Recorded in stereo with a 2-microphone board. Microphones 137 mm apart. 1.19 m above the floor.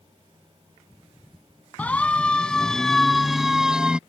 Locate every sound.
1.8 s a siren: 10° left (ahead or behind); by 4.0 s 5° right (ahead or behind)